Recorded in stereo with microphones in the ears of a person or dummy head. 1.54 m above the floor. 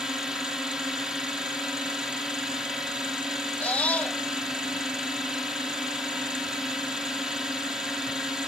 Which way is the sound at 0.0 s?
5° right (ahead or behind).